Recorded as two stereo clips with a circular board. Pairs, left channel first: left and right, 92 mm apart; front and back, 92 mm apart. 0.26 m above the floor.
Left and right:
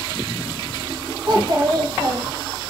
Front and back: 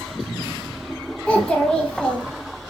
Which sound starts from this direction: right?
A child speaking, at 1.3 s.